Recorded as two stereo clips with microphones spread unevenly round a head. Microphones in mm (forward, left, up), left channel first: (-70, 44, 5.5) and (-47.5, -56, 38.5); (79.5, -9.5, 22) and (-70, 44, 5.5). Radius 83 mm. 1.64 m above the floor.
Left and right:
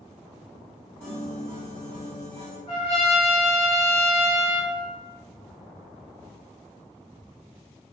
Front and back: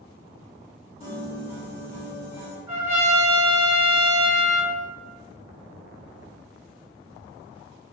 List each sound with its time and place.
1.0 s a piano: 5° left, 1.3 m
2.7 s a trumpet: 90° left, 1.5 m